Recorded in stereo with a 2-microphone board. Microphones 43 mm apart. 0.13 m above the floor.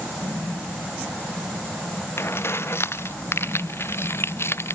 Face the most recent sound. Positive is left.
turn(degrees=85)